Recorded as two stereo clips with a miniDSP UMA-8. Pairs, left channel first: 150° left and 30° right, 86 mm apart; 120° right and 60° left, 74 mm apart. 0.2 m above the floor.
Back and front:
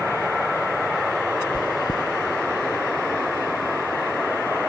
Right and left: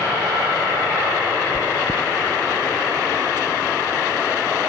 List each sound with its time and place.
1.5 s chewing: 175° right, 0.9 m